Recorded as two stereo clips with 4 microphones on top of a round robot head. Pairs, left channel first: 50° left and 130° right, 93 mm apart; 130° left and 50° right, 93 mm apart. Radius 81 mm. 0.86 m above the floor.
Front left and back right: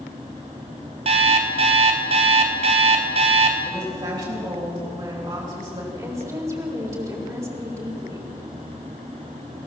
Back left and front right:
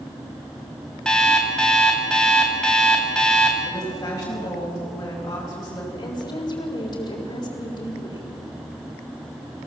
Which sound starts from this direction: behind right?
An alarm clock, at 1.1 s.